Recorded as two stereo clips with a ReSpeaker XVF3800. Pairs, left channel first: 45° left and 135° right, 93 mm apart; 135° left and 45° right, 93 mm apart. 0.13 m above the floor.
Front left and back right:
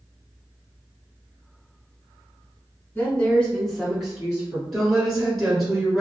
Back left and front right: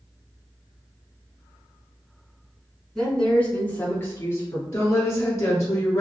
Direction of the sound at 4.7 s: 145° left.